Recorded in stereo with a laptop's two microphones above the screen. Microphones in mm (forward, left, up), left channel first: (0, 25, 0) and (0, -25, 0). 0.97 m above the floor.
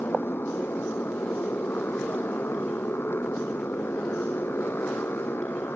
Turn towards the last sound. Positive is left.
turn(degrees=50)  # may be behind; listen again after turning